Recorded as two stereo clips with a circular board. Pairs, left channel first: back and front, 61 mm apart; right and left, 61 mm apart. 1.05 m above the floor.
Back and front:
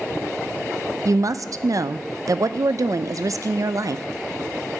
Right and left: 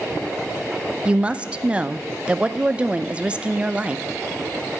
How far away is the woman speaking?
About 0.6 m.